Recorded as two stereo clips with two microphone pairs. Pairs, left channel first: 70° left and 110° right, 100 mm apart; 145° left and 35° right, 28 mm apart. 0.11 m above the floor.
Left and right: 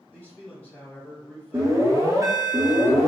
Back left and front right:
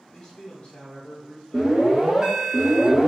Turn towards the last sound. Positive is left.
turn(degrees=-80)